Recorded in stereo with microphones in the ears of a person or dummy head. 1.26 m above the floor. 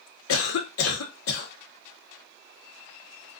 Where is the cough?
80° left, 0.8 m.